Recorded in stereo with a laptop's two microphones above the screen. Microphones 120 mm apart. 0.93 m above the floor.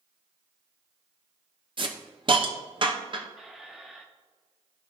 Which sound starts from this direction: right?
A hiss, at 1.8 s.